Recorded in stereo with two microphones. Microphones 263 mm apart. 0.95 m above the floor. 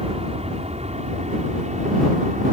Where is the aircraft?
25° right (ahead or behind); by 2.5 s 30° right (ahead or behind).